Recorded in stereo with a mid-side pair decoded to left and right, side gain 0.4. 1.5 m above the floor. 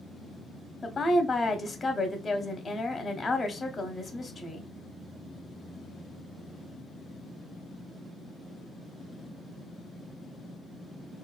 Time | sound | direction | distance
0.8 | a woman speaking | 30° left | 0.6 m